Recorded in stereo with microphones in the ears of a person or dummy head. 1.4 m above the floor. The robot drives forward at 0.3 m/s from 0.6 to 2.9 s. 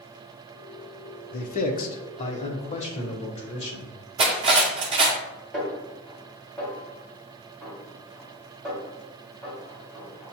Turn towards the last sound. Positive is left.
turn(degrees=0)  # may be behind; listen again after turning